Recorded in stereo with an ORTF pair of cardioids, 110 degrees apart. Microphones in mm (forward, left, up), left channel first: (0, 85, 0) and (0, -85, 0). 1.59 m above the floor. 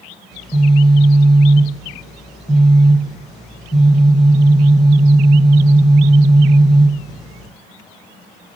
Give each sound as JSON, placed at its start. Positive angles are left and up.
{"t": 0.3, "sound": "a phone buzzing", "azimuth_deg": 0, "distance_m": 1.1}